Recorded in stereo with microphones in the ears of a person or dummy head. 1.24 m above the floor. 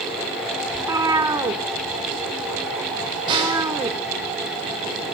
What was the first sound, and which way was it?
A cat meowing, 15° right (ahead or behind).